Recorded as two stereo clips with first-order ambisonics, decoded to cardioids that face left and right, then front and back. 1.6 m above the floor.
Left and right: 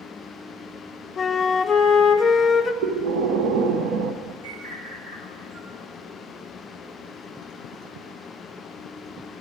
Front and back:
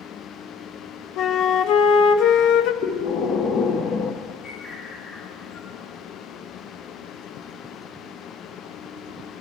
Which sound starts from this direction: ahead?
A flute, at 1.2 s.